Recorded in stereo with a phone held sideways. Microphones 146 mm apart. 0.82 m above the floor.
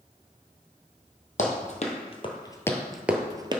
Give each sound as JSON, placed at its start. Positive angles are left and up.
{"t": 1.4, "sound": "running footsteps", "side_deg": 55, "distance_m": 1.5}